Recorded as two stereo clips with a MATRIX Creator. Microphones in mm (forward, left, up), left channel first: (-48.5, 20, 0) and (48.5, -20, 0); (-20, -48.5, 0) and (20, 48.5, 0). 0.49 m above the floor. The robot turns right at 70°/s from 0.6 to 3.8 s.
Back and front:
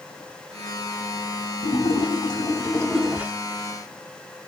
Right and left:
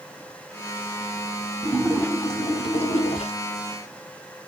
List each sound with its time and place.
1.6 s a splash: 155° left, 0.5 m; by 3.3 s 90° right, 0.5 m